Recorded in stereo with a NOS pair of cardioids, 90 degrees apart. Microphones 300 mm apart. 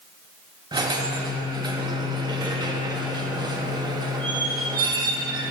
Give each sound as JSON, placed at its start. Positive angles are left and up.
{"t": 0.7, "sound": "a squeak", "azimuth_deg": -15, "distance_m": 1.4}